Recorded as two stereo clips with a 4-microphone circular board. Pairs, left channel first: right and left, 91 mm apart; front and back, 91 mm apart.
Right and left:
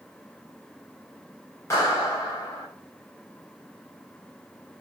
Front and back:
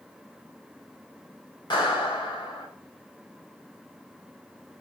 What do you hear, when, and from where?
1.7 s a clap: 35° right, 3.5 m